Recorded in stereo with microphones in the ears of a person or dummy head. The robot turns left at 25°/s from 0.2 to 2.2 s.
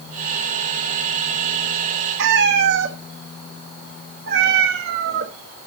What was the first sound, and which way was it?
A cat meowing, 55° right (ahead or behind).